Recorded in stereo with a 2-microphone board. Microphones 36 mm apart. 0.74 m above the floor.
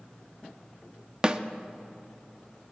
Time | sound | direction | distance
1.2 | a snare drum | 25° right (ahead or behind) | 0.6 m